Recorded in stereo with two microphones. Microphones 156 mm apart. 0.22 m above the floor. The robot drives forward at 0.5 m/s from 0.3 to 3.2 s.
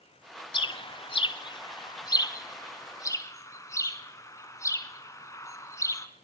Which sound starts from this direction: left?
A bird, at 0.5 s.